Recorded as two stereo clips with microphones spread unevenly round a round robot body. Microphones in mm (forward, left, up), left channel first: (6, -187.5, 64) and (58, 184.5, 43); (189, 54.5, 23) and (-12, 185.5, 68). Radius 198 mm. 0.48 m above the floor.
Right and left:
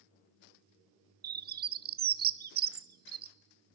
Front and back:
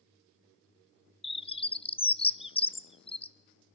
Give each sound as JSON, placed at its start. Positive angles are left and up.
{"t": 1.2, "sound": "a bird", "azimuth_deg": 25, "distance_m": 0.8}